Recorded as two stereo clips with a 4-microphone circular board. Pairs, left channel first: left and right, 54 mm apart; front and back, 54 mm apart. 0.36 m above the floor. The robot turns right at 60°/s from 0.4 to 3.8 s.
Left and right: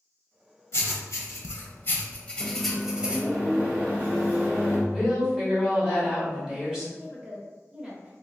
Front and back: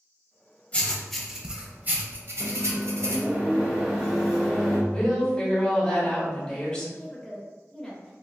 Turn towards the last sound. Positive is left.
turn(degrees=-75)